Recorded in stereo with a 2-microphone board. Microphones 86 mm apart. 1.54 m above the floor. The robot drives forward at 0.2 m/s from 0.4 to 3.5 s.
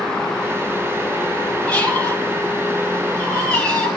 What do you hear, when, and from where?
1.7 s a squeak: 15° left (ahead or behind), 3.5 m